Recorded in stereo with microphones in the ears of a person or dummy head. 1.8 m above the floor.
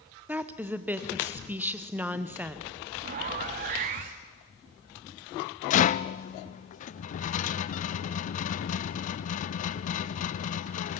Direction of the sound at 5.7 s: 50° left (ahead or behind).